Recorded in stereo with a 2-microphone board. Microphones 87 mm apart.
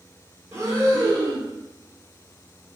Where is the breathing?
35° right (ahead or behind), 1.3 m.